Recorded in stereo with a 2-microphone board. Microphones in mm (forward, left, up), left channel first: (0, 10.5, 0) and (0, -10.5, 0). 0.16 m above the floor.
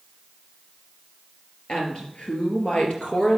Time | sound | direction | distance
1.7 | a woman speaking | 60° left (ahead or behind) | 3 m